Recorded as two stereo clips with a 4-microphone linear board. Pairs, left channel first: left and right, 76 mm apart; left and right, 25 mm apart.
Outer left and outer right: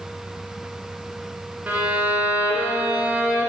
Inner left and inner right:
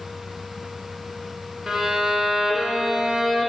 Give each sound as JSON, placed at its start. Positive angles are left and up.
{"t": 1.7, "sound": "a violin", "side_deg": -20, "distance_m": 1.6}